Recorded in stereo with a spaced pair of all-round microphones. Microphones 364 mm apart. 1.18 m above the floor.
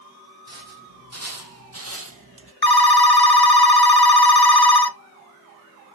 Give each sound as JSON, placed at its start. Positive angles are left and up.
{"t": 0.5, "sound": "footsteps", "side_deg": -45, "distance_m": 3.0}
{"t": 2.6, "sound": "a phone ringing", "side_deg": 75, "distance_m": 0.9}